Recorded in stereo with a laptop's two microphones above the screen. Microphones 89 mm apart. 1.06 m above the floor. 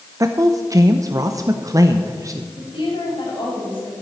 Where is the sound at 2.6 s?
70° left (ahead or behind), 6 m.